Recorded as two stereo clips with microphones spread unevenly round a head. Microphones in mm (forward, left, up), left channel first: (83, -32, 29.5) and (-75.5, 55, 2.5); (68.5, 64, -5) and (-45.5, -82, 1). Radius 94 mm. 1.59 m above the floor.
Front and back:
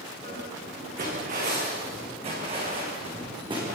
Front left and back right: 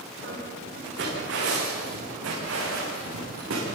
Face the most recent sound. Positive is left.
turn(degrees=-140)